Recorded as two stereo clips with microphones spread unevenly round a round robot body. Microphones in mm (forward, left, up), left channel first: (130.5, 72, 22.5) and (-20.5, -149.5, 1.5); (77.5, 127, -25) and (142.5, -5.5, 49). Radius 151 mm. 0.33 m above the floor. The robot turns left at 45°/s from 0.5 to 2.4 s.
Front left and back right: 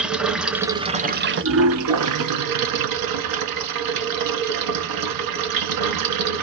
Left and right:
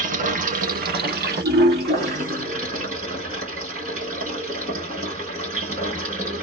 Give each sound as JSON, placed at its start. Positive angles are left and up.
{"t": 0.0, "sound": "running water", "azimuth_deg": -35, "distance_m": 0.8}